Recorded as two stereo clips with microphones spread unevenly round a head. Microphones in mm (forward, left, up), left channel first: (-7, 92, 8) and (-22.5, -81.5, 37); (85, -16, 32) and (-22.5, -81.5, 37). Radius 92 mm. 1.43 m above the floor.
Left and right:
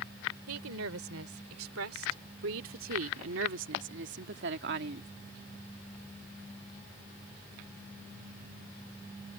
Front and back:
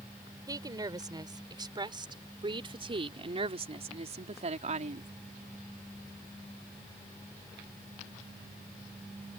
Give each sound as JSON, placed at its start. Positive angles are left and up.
{"t": 0.5, "sound": "a woman speaking", "azimuth_deg": -90}